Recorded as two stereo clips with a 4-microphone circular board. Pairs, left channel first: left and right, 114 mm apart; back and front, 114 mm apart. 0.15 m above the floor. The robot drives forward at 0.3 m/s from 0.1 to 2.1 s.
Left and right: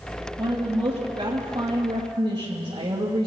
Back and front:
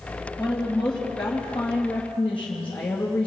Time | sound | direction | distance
0.4 | a woman speaking | 90° right | 2.5 m